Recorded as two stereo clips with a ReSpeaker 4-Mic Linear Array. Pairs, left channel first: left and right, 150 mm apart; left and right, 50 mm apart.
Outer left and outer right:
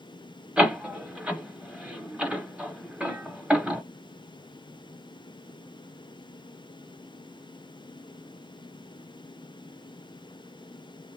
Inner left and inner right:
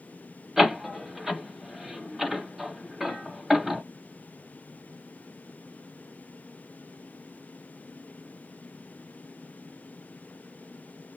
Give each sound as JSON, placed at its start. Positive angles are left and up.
{"t": 0.6, "sound": "a door slam", "side_deg": -10, "distance_m": 1.0}